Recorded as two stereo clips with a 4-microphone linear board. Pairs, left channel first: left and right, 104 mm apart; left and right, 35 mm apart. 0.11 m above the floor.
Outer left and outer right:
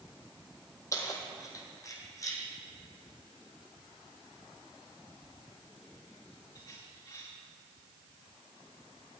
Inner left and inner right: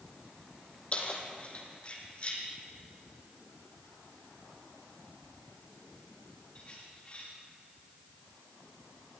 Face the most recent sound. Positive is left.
turn(degrees=35)  # may be behind; listen again after turning